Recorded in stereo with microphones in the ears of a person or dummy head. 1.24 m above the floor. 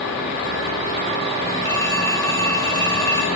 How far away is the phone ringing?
About 1.1 m.